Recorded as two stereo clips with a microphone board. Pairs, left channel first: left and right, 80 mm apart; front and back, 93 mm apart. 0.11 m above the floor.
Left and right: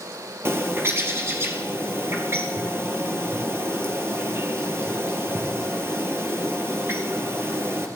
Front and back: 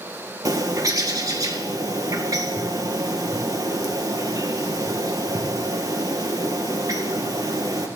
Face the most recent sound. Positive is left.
turn(degrees=-140)